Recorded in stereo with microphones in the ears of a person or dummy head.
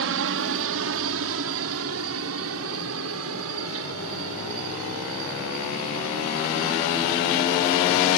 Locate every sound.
0.0 s a helicopter: 65° right (ahead or behind); by 8.2 s 75° right (ahead or behind)